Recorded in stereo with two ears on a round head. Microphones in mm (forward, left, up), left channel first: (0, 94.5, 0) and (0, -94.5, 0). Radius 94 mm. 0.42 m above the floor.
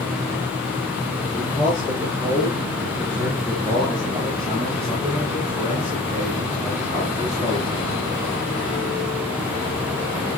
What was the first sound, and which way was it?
A man speaking, 5° right (ahead or behind).